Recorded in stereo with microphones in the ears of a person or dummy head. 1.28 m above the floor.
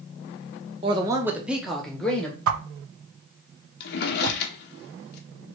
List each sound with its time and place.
0.8 s a man speaking: 35° right (ahead or behind), 0.6 m; by 2.4 s centre (ahead or behind), 1.4 m
2.5 s a whoosh: 80° right, 0.5 m
3.8 s a drawer: 55° left (ahead or behind), 0.8 m